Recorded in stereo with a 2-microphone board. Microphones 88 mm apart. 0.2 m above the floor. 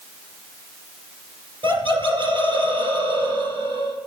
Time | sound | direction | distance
1.6 | laughter | 70° right (ahead or behind) | 3 m